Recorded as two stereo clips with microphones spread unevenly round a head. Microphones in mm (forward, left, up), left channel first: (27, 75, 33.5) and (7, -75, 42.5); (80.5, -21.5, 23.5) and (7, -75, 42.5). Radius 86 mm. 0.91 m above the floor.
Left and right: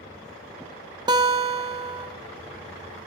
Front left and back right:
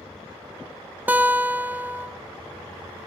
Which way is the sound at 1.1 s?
70° right.